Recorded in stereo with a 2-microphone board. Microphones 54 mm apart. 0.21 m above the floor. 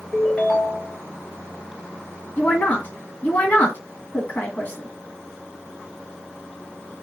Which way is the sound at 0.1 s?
10° left (ahead or behind).